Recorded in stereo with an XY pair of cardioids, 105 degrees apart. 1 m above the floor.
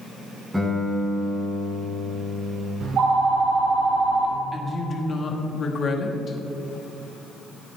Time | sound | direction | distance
0.5 | a guitar | 5° right | 2.5 m
2.8 | a phone ringing | 65° right | 1.9 m
4.5 | a woman speaking | 45° left | 1.3 m